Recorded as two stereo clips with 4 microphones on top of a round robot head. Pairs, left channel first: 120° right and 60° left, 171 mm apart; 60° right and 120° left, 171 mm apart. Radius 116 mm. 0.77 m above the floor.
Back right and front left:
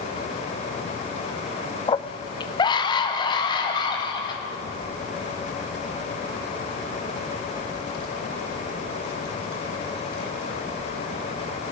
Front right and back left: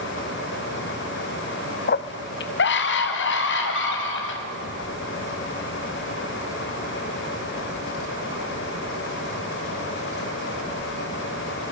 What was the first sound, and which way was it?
A scream, 60° right.